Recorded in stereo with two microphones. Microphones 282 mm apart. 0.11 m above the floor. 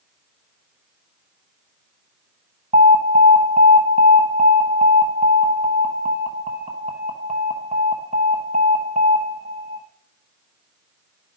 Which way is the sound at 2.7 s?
25° right (ahead or behind).